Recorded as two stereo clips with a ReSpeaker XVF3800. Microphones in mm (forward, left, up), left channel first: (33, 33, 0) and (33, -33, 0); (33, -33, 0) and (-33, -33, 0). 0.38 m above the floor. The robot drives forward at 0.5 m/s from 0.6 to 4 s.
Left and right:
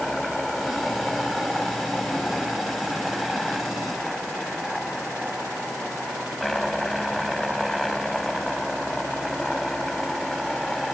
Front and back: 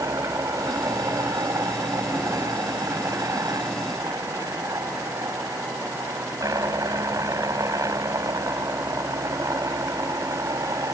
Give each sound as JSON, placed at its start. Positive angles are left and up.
{"t": 0.0, "sound": "a helicopter", "azimuth_deg": 180}